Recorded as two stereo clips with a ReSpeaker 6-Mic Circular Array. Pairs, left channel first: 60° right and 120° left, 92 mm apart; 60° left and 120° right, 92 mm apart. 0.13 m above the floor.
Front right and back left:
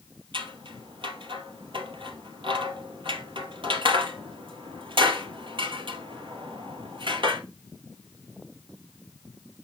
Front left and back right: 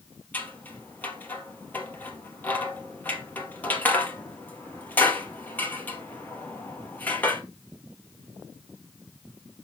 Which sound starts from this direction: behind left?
Scissors, at 0.3 s.